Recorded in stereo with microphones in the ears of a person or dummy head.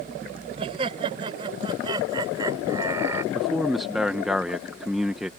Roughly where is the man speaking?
Centre.